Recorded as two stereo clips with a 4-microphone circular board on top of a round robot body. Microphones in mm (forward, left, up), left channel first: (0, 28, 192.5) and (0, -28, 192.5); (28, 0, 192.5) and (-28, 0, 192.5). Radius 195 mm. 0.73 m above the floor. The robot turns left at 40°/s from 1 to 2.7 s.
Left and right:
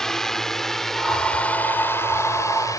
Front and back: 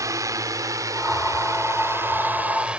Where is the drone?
170° left; by 2.8 s 110° left.